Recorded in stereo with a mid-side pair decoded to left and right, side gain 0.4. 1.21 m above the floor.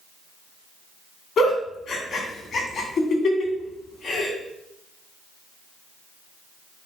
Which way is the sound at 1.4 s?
60° left.